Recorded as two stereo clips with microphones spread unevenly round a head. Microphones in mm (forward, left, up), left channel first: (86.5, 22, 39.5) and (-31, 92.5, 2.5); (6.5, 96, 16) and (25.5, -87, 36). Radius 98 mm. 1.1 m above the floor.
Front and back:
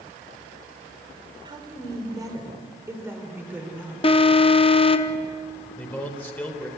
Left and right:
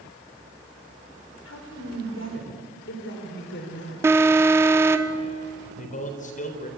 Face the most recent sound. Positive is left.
turn(degrees=45)